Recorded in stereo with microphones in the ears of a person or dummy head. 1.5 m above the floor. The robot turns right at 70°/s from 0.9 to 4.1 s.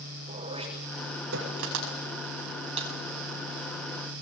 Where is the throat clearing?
30° right (ahead or behind), 6.5 m; by 1.5 s 75° right (ahead or behind), 6.5 m.